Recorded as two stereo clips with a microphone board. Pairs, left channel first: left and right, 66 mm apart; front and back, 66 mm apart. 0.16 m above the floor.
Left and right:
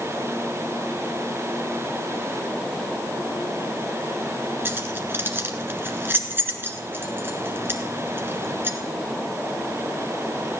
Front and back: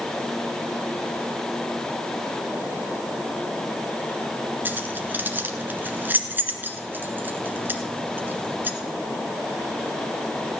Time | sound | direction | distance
4.7 | keys jangling | 130° right | 1.5 m